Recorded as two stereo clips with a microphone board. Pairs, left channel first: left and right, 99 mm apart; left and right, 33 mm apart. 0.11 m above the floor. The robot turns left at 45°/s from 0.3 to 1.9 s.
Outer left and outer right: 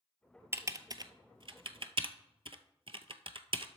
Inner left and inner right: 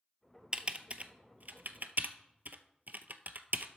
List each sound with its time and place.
0.5 s typing on a keyboard: 25° right (ahead or behind), 0.6 m; by 3.7 s 65° right (ahead or behind), 0.6 m